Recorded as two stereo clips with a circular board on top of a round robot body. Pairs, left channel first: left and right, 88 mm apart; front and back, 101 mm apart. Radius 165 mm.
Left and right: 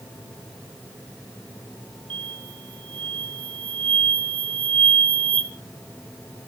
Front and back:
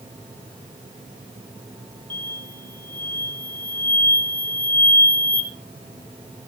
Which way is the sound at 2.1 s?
70° right.